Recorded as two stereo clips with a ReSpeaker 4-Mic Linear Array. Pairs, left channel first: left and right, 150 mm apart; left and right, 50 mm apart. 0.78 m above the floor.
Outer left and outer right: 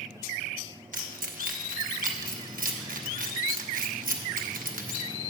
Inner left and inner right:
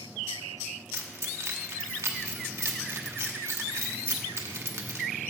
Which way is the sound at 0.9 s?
65° right (ahead or behind).